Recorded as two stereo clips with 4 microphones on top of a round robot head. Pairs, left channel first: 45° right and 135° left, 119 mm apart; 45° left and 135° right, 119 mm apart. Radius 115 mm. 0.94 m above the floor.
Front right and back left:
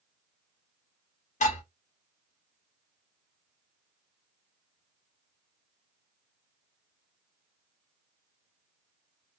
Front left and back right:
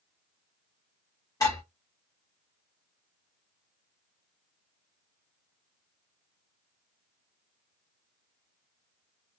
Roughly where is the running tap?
No running tap in this recording.